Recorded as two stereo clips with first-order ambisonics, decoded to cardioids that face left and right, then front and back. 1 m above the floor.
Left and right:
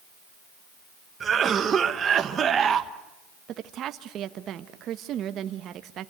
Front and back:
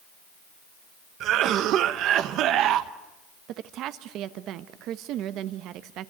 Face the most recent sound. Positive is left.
turn(degrees=-140)